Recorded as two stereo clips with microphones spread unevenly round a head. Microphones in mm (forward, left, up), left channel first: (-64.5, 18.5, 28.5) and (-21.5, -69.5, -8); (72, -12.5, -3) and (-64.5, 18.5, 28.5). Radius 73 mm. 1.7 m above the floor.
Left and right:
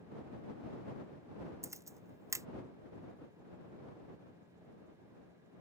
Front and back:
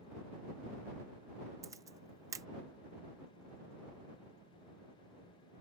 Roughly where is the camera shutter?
Behind right.